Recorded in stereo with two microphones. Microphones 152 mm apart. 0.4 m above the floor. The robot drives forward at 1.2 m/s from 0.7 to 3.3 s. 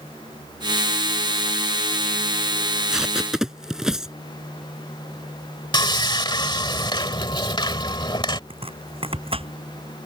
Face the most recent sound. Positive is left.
turn(degrees=-40)  # may be behind; listen again after turning